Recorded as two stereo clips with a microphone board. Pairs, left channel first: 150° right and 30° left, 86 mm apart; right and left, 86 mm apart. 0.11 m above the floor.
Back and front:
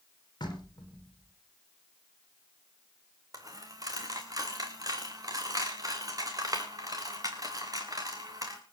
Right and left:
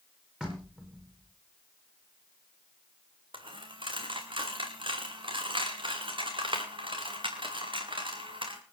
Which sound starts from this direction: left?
A dropped coin, at 3.3 s.